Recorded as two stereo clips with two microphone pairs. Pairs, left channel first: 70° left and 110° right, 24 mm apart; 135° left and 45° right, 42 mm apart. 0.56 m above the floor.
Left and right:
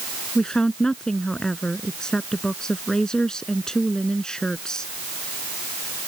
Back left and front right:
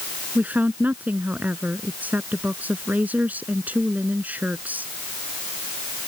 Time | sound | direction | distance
0.3 | a woman speaking | 5° left | ?